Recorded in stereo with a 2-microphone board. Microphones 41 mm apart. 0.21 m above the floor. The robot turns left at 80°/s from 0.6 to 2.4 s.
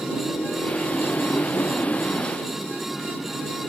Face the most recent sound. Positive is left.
turn(degrees=10)